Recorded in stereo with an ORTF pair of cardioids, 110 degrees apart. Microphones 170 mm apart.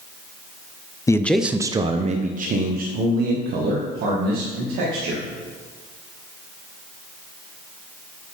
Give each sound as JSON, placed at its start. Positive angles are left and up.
{"t": 1.1, "sound": "a man speaking", "azimuth_deg": 20, "distance_m": 0.5}